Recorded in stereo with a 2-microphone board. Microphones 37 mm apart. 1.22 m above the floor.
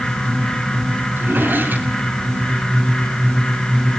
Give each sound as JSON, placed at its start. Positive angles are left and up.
{"t": 1.2, "sound": "a drawer", "side_deg": -60, "distance_m": 6.0}